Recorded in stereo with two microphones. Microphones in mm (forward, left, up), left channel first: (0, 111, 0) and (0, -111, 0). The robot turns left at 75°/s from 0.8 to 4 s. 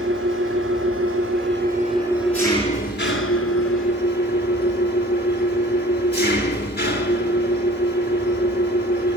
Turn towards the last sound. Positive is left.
turn(degrees=50)